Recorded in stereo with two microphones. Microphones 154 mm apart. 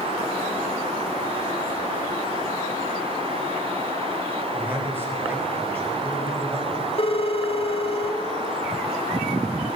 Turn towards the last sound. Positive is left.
turn(degrees=40)  # may be behind; listen again after turning